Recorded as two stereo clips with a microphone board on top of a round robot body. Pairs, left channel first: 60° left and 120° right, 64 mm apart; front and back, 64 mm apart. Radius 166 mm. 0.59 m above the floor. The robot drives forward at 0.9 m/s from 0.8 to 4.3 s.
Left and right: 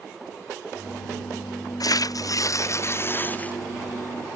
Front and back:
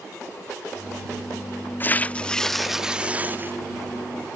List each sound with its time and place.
1.8 s tearing paper: 55° left; by 3.5 s 125° left